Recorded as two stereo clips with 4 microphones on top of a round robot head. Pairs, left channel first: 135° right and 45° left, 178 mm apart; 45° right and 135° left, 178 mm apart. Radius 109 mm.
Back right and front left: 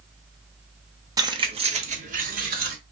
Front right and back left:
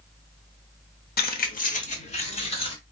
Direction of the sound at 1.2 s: 20° right.